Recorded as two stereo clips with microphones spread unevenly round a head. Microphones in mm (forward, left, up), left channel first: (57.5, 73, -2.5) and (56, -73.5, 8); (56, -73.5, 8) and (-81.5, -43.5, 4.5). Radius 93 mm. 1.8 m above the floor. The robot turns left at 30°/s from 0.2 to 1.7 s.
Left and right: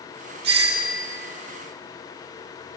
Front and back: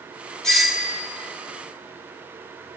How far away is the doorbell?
About 3 m.